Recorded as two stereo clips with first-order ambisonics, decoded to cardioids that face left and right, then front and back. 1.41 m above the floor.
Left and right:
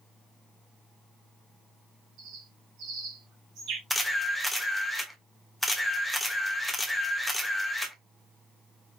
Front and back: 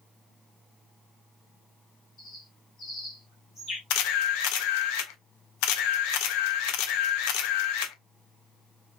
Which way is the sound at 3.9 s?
Straight ahead.